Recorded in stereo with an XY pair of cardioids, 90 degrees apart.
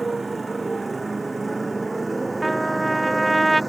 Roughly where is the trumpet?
Ahead.